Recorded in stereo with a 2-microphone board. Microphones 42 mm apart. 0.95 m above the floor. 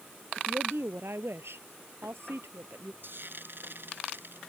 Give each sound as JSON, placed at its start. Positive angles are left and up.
{"t": 0.4, "sound": "a woman speaking", "side_deg": -80}
{"t": 3.0, "sound": "frying", "side_deg": -60}